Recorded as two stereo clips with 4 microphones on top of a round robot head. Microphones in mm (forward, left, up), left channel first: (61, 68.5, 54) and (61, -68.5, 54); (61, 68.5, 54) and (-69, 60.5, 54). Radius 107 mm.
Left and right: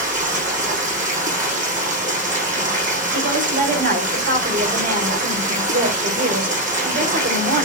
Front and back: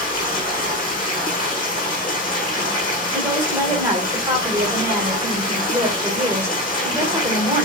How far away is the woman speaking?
About 4 m.